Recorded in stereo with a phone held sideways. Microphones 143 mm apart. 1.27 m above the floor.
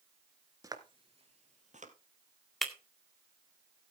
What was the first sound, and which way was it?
Footsteps, 25° right (ahead or behind).